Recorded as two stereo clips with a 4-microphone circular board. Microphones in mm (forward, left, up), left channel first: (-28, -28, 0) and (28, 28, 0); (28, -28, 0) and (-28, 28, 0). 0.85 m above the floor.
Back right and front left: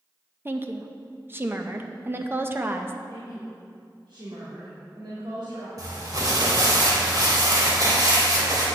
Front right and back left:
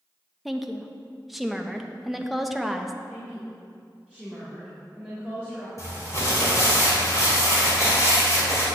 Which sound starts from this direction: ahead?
Crumpling, at 5.8 s.